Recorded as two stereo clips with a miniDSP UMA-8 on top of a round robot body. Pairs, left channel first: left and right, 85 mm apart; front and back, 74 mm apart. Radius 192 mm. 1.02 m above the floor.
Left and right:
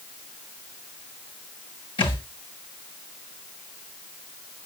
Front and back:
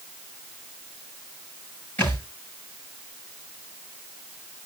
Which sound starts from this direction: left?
A thud, at 2.0 s.